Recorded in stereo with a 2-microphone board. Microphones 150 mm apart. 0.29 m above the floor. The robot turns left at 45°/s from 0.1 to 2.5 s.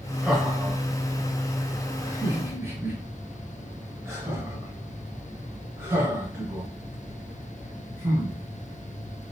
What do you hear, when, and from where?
0.2 s laughter: 5° right (ahead or behind), 1.0 m; by 9.3 s 20° right (ahead or behind), 1.0 m